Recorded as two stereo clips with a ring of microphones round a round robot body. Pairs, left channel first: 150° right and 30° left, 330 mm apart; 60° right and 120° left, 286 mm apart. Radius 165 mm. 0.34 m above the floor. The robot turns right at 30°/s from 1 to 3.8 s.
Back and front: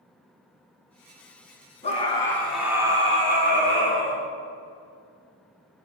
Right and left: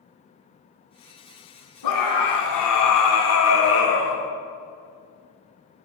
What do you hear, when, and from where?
1.8 s a scream: 80° right, 3.5 m; by 4.2 s 20° right, 3.5 m